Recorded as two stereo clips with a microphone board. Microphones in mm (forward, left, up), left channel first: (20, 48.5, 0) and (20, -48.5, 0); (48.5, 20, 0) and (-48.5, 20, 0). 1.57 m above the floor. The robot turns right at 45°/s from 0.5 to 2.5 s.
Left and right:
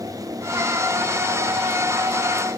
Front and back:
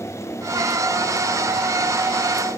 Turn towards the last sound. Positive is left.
No sound to turn to.